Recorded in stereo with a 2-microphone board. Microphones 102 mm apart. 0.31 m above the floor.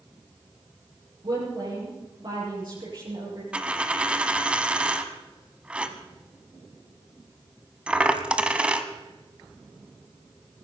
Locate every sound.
1.2 s a woman speaking: 55° right (ahead or behind), 6.5 m
3.5 s a dropped coin: 10° right (ahead or behind), 1.0 m